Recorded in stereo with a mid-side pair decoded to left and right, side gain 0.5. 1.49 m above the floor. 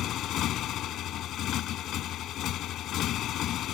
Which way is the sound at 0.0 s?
65° left.